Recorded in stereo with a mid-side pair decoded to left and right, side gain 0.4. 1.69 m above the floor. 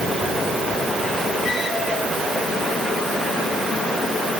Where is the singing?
I don't hear singing.